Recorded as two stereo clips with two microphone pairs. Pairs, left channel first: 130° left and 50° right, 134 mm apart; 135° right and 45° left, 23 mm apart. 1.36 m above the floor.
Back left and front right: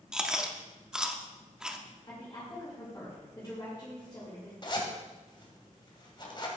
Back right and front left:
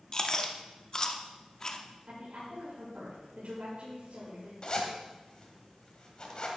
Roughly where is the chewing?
Behind right.